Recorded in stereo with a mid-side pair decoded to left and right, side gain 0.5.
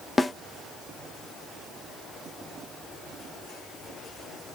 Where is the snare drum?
20° left, 0.7 m.